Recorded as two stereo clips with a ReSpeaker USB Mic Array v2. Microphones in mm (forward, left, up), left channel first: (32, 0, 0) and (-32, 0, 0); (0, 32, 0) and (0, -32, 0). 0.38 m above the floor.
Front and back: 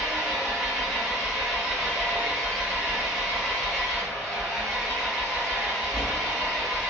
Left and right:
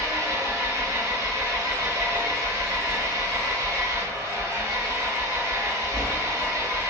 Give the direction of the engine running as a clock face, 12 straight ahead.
3 o'clock.